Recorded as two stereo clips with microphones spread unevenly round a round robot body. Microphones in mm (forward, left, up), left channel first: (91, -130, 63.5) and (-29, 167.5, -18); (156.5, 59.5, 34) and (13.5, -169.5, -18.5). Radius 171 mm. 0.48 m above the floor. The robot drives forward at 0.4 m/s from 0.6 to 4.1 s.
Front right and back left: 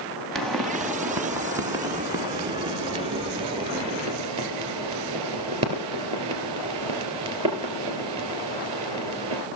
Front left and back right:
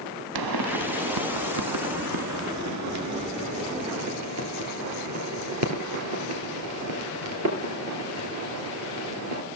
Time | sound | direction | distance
0.3 | a pop | 155° right | 0.7 m